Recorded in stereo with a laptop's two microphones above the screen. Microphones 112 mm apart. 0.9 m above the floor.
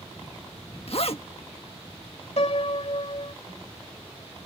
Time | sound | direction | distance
0.9 | a zipper | 60° left (ahead or behind) | ?
2.4 | a piano | 70° left (ahead or behind) | ?